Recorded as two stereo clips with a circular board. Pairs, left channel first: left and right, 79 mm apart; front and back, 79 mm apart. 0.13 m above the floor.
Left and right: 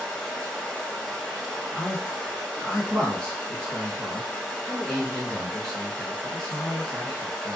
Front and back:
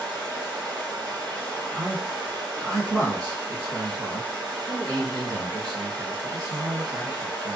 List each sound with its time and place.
0.0 s running water: 170° left, 1.5 m
1.7 s a man speaking: 165° left, 1.9 m